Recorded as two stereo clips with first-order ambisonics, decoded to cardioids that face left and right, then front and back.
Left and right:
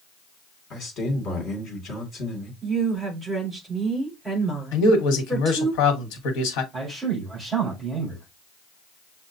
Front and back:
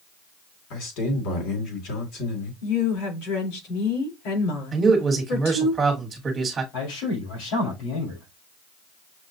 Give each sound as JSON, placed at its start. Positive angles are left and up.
{"t": 0.7, "sound": "a man speaking", "azimuth_deg": 30, "distance_m": 2.0}
{"t": 2.6, "sound": "a woman speaking", "azimuth_deg": -10, "distance_m": 4.0}
{"t": 4.7, "sound": "a man speaking", "azimuth_deg": 110, "distance_m": 1.3}
{"t": 6.7, "sound": "a man speaking", "azimuth_deg": -15, "distance_m": 4.0}